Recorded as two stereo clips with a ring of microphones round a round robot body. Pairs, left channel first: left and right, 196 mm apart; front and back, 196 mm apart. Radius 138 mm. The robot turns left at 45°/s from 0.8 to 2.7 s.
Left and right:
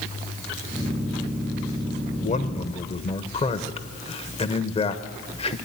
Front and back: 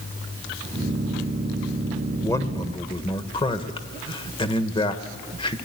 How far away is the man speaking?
About 1.2 m.